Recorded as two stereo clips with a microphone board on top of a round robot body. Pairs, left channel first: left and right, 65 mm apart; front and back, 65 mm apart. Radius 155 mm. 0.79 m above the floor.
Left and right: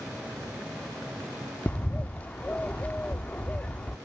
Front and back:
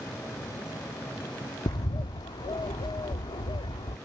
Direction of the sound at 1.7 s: 20° left.